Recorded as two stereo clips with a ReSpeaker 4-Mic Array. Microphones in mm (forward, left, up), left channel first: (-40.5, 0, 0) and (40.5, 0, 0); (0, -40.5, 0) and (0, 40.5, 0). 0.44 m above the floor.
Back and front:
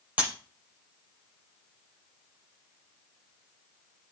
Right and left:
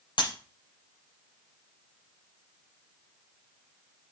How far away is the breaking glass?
About 5 m.